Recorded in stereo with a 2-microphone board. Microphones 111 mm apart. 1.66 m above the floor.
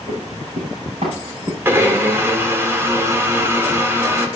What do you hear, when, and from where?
0.1 s running footsteps: 65° right (ahead or behind), 6 m
1.6 s a blender: 20° right (ahead or behind), 1.6 m